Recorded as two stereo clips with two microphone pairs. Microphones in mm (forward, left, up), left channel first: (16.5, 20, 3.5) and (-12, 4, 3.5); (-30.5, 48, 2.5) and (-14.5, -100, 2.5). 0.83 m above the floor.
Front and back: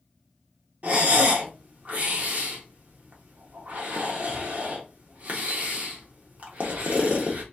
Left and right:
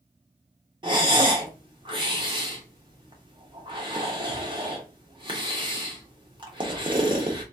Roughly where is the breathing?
Behind right.